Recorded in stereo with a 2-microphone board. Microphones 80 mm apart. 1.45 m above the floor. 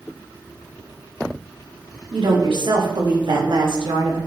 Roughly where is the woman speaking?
Right.